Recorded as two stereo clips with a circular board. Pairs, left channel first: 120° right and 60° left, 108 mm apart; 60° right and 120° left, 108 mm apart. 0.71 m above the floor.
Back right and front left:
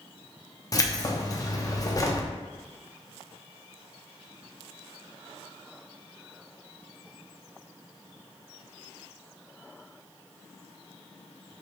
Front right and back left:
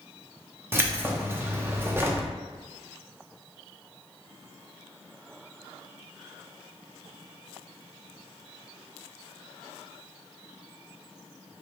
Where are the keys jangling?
175° right, 0.5 m.